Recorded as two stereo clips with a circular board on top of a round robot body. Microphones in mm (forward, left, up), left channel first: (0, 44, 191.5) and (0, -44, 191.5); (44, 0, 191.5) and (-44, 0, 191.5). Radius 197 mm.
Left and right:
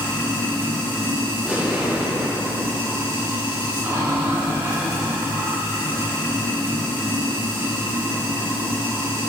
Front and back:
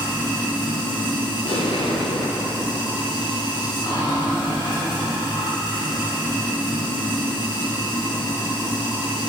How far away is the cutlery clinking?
No cutlery clinking in this recording.